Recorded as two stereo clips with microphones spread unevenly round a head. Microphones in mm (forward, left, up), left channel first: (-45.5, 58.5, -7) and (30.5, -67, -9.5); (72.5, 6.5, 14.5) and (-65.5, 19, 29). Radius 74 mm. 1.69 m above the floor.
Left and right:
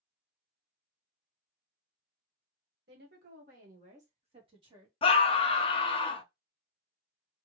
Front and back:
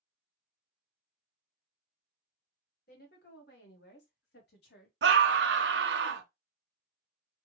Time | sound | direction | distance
2.9 | a woman speaking | 35° right | 1.7 m
5.0 | a scream | straight behind | 0.7 m